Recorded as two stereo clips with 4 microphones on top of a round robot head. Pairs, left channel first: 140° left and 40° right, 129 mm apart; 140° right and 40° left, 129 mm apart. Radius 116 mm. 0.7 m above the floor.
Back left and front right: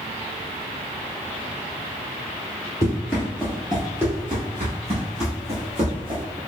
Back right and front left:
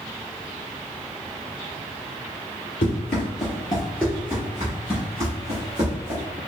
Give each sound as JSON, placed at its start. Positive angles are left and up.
{"t": 2.8, "sound": "running footsteps", "azimuth_deg": -155, "distance_m": 0.9}